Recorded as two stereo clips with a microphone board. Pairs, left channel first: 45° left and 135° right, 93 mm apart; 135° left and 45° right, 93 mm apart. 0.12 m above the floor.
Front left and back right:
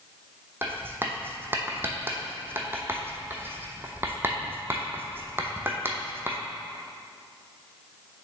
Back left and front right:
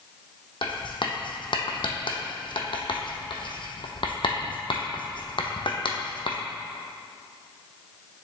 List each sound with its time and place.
0.6 s writing: 160° left, 0.8 m